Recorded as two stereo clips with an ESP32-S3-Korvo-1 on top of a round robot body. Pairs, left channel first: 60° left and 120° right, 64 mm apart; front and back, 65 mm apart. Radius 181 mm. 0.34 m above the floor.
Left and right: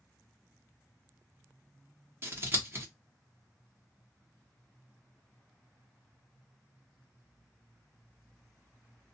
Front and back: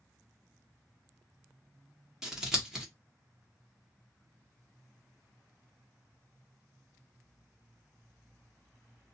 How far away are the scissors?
About 1.5 m.